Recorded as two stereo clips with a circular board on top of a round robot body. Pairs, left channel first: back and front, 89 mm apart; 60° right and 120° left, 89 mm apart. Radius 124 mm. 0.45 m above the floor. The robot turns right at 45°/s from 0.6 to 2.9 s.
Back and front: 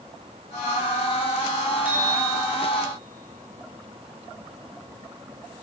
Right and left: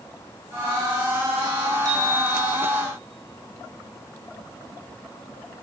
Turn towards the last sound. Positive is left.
turn(degrees=120)